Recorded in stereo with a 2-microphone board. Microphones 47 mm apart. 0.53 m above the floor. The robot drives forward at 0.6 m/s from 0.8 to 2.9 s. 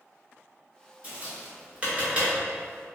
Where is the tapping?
25° right (ahead or behind), 1.9 m; by 2.3 s 20° right (ahead or behind), 2.5 m.